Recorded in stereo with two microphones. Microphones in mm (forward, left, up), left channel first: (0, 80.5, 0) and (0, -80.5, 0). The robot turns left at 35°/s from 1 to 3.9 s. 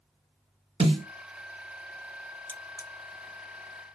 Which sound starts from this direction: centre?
Cutlery clinking, at 2.5 s.